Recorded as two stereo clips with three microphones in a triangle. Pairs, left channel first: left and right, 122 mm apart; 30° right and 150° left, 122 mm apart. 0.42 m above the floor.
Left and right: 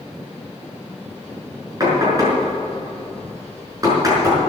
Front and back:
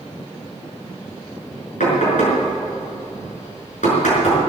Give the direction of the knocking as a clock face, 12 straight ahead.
1 o'clock.